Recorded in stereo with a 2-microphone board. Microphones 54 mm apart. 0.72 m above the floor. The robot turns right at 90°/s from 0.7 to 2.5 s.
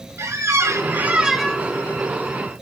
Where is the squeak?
65° right, 0.6 m; by 1.7 s 25° left, 0.6 m.